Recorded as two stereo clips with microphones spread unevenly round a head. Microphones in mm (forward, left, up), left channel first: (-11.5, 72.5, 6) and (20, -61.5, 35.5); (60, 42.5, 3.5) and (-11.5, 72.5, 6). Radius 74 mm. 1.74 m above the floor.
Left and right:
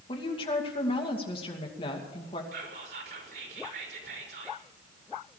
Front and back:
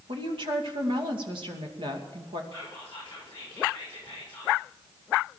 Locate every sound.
0.1 s a woman speaking: 160° left, 2.5 m
2.5 s whispering: 100° right, 5.5 m